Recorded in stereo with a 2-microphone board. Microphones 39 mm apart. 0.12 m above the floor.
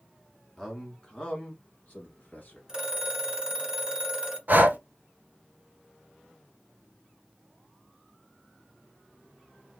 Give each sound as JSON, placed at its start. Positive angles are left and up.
{"t": 0.6, "sound": "a man speaking", "side_deg": 5, "distance_m": 1.3}
{"t": 2.7, "sound": "a phone ringing", "side_deg": -15, "distance_m": 1.1}
{"t": 4.5, "sound": "breathing", "side_deg": -50, "distance_m": 0.7}